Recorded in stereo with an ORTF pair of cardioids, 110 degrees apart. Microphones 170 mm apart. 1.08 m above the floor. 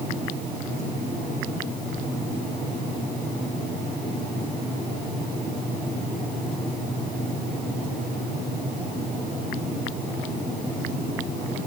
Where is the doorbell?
I don't hear a doorbell.